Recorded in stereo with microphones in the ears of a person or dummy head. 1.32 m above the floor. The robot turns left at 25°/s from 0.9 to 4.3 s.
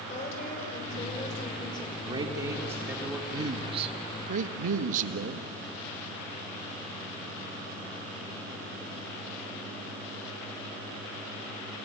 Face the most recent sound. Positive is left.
turn(degrees=-45)  # may be behind; listen again after turning